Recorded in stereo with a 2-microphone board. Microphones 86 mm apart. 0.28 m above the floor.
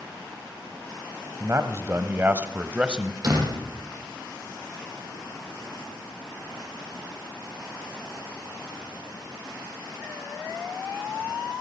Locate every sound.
1.4 s a man speaking: 35° right (ahead or behind), 1.8 m; by 3.1 s 10° right (ahead or behind), 1.7 m
3.2 s a door slam: 50° right (ahead or behind), 7.5 m